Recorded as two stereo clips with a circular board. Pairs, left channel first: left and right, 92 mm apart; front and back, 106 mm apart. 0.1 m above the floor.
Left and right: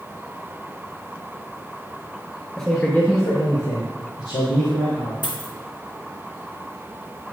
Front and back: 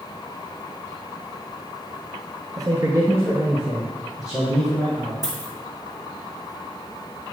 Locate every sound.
2.6 s a man speaking: 175° left, 1.4 m; by 5.1 s 90° left, 3 m
5.2 s a dropped coin: 130° left, 1.5 m